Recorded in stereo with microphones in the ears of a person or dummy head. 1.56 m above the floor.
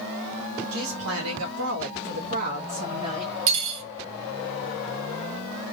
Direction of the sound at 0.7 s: 80° right.